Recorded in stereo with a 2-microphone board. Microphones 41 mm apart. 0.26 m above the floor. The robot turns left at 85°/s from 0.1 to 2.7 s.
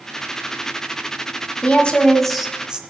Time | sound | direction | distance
1.6 | a woman speaking | 65° left | 1.3 m